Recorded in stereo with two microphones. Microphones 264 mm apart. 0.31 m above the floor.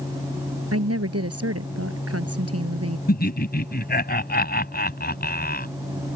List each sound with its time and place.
0.7 s a woman speaking: 65° right (ahead or behind)
3.1 s laughter: 35° left (ahead or behind)